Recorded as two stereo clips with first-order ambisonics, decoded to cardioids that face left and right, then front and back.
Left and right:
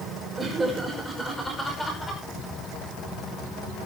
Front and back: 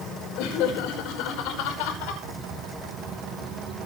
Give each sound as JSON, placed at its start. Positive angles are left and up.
{"t": 0.4, "sound": "laughter", "azimuth_deg": -10, "distance_m": 6.0}